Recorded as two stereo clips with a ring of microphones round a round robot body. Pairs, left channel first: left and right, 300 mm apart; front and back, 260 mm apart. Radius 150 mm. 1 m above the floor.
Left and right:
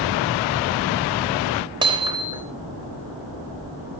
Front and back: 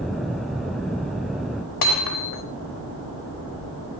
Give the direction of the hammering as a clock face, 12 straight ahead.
12 o'clock.